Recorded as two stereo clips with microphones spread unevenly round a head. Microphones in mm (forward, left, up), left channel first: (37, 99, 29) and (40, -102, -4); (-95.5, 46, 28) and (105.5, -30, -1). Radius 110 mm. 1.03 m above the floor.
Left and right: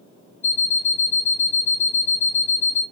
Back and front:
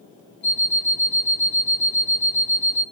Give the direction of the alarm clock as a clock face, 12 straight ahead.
6 o'clock.